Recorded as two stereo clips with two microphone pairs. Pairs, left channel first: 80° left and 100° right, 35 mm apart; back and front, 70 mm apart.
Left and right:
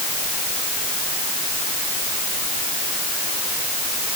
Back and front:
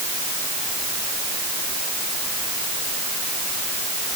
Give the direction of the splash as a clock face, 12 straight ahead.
I don't hear a splash.